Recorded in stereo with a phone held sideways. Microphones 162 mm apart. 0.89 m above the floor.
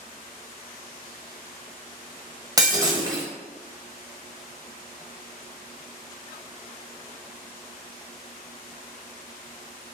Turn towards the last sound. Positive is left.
turn(degrees=-25)  # may be behind; listen again after turning